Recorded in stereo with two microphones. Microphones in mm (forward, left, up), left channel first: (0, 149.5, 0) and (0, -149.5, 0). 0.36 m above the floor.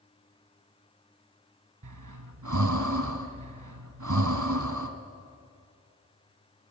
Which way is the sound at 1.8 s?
75° right (ahead or behind).